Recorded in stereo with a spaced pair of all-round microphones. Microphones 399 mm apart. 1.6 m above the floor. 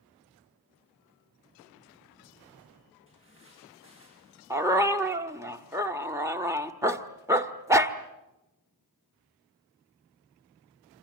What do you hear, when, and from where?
3.1 s footsteps: 30° left (ahead or behind), 8 m; by 4.4 s 35° left (ahead or behind), 7 m
4.5 s a dog barking: 5° right (ahead or behind), 1.3 m